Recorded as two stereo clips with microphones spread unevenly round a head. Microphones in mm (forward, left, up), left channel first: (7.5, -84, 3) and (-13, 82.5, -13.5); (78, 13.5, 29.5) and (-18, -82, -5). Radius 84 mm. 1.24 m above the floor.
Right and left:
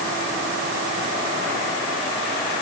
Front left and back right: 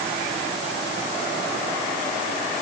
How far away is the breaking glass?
No breaking glass in this recording.